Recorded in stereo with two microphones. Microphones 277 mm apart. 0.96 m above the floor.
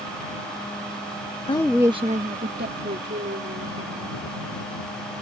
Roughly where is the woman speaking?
Left.